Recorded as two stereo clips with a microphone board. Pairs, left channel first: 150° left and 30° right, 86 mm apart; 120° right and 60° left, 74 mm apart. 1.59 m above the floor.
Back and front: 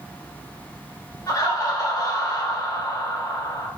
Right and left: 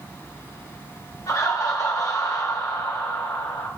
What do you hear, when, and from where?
1.3 s laughter: 160° right, 0.9 m